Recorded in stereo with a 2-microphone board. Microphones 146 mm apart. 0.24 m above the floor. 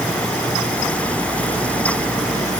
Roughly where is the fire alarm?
I don't hear a fire alarm.